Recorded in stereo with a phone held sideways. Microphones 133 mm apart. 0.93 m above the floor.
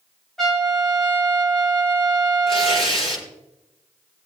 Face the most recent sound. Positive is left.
turn(degrees=45)  # may be behind; listen again after turning